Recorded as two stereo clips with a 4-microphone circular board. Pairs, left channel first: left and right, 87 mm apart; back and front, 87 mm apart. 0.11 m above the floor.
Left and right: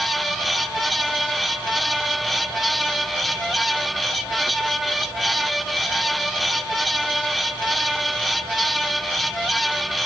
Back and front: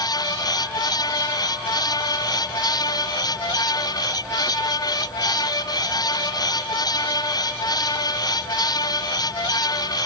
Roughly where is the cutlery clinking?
I don't hear cutlery clinking.